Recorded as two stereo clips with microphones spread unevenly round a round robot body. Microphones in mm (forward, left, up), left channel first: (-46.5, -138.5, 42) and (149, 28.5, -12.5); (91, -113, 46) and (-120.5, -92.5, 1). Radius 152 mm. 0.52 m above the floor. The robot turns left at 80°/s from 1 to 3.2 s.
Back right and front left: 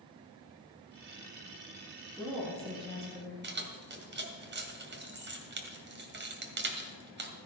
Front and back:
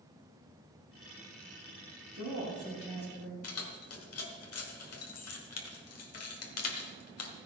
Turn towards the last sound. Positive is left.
turn(degrees=-5)